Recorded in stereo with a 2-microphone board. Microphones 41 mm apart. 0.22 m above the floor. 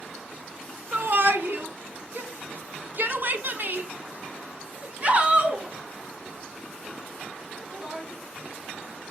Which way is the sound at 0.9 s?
55° right (ahead or behind).